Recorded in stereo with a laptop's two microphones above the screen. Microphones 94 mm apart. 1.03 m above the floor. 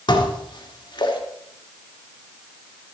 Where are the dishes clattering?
55° left (ahead or behind), 1.7 m.